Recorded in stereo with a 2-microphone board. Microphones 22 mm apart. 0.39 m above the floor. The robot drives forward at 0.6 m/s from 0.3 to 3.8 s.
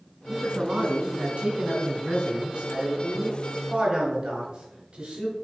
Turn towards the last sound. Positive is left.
turn(degrees=-45)  # may be behind; listen again after turning